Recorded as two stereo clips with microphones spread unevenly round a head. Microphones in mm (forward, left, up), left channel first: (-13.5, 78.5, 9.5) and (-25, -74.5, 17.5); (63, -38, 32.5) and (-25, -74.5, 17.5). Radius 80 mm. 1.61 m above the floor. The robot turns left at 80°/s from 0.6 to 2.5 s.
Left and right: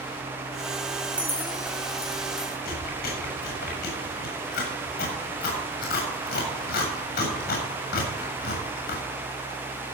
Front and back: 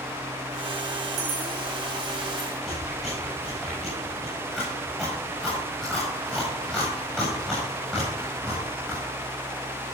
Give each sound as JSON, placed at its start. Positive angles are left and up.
{"t": 1.0, "sound": "keys jangling", "azimuth_deg": -165, "distance_m": 3.5}
{"t": 2.6, "sound": "chewing", "azimuth_deg": 110, "distance_m": 7.0}